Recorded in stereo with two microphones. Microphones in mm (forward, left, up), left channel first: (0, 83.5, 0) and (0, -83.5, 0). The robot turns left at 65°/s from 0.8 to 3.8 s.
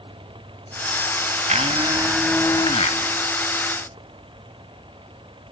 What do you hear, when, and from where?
1.5 s a blender: 130° right, 1.1 m; by 3.0 s 130° left, 1.1 m